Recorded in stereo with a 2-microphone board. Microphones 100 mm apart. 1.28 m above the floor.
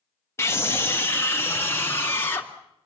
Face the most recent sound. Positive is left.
turn(degrees=25)  # may be behind; listen again after turning